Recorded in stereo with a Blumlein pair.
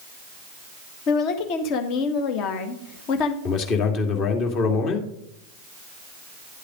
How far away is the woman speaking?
About 1.6 m.